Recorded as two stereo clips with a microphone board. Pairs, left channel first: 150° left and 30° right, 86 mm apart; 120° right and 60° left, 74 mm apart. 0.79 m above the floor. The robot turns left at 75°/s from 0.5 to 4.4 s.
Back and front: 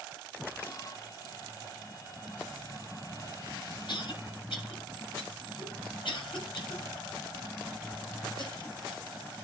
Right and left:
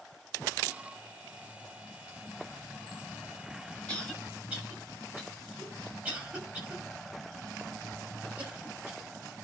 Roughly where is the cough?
Behind.